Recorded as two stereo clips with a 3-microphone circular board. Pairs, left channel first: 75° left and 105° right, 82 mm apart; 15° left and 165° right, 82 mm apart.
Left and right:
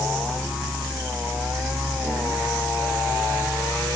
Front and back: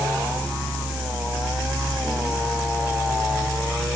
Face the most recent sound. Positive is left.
No sound to turn to.